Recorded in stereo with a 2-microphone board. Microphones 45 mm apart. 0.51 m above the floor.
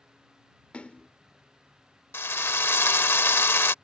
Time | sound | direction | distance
0.7 | a splash | 30° left (ahead or behind) | ?
2.1 | a drill | 65° left (ahead or behind) | ?